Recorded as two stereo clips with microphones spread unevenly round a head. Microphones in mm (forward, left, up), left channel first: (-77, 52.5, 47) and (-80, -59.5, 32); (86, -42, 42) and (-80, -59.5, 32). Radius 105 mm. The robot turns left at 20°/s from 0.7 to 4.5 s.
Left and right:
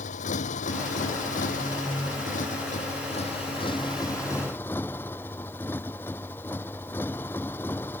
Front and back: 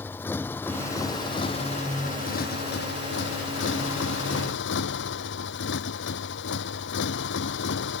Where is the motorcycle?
85° left; by 8.0 s 10° left.